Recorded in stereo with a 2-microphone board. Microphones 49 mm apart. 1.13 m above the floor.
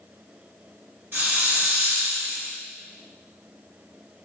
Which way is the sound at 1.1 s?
50° right (ahead or behind).